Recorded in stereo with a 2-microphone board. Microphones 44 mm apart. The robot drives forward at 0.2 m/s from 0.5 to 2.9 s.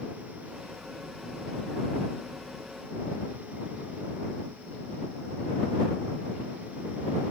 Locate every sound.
Only background noise.